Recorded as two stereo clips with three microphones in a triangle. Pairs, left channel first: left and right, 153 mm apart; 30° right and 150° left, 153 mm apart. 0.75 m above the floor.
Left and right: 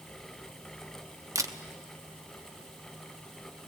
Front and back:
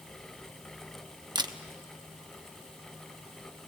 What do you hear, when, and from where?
1.4 s a camera shutter: 155° right, 0.9 m